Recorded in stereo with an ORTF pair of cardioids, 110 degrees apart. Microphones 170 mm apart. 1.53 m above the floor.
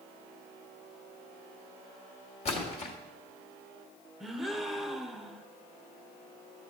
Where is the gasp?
Straight ahead, 0.7 m.